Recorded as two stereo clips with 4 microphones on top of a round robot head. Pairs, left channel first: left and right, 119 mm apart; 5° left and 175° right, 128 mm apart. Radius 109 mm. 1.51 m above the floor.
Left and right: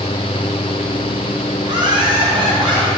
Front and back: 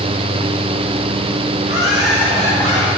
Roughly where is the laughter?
Ahead right.